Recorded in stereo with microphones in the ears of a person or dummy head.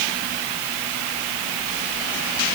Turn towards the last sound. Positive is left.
No sound to turn to.